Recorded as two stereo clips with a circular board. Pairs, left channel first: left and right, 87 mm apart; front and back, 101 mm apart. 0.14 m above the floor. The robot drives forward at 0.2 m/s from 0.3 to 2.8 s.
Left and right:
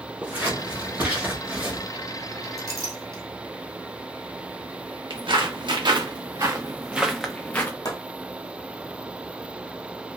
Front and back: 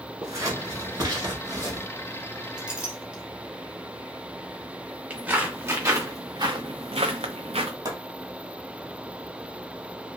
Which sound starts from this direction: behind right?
Scissors, at 0.2 s.